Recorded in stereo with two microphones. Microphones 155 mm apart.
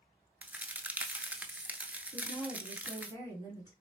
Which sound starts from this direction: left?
A woman speaking, at 2.1 s.